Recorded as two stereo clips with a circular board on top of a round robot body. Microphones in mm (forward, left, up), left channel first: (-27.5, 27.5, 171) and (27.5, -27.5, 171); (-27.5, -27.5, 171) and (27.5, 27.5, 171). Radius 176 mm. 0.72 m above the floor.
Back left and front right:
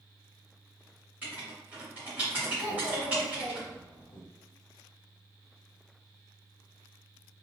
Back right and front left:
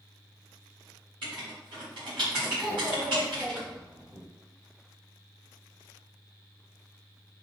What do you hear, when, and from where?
1.2 s writing: 30° left, 0.7 m
2.6 s a child speaking: 130° left, 1.3 m